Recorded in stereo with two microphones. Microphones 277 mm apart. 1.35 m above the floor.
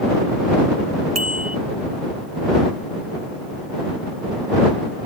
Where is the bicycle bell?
65° right (ahead or behind).